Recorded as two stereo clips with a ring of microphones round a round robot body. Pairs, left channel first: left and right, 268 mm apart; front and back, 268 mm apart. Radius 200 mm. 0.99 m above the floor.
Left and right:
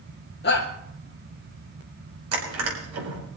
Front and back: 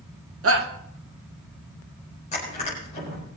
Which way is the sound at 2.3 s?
70° right.